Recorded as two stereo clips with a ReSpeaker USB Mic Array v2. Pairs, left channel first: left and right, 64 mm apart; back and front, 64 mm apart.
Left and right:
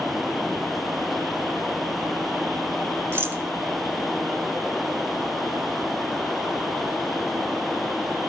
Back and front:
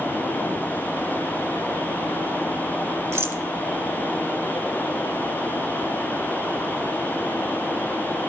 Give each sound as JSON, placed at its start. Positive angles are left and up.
{"t": 3.1, "sound": "a rattle", "azimuth_deg": -45, "distance_m": 0.5}